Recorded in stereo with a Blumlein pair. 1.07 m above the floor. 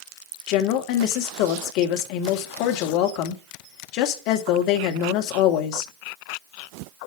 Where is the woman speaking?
40° left, 1.8 m.